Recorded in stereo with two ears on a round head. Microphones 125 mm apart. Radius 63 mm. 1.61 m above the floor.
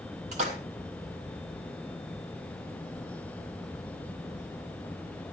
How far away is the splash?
About 3 m.